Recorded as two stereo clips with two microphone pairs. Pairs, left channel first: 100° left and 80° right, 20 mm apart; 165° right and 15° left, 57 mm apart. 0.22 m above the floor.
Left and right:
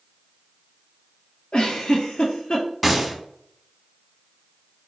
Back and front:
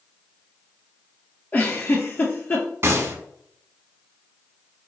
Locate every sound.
1.5 s a giggle: 135° left, 0.7 m
2.8 s a gunshot: straight ahead, 0.6 m